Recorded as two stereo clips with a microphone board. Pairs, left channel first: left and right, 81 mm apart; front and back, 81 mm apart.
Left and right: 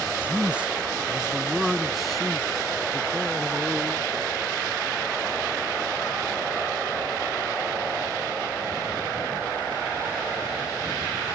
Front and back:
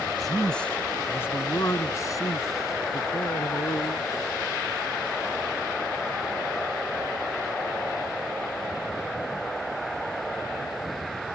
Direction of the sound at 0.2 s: 85° right.